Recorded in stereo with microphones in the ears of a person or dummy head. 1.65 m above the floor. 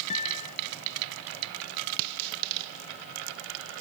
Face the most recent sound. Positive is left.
turn(degrees=35)  # may be behind; listen again after turning